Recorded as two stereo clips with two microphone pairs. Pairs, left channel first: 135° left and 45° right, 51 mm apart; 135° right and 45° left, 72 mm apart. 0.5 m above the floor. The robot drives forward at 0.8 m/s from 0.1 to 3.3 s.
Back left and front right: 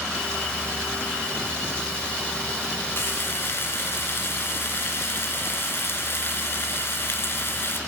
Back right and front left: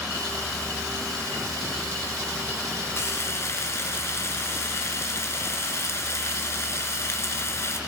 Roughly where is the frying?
Behind.